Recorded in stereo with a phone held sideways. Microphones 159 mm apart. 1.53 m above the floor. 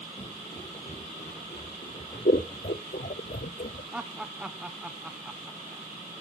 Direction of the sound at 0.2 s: 35° left (ahead or behind).